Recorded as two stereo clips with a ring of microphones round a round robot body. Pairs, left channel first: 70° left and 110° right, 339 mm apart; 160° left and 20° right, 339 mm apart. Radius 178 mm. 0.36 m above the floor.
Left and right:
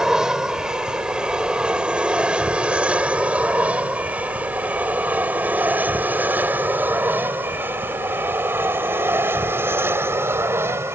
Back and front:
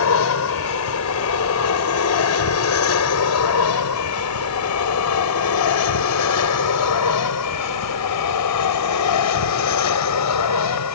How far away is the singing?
I don't hear singing.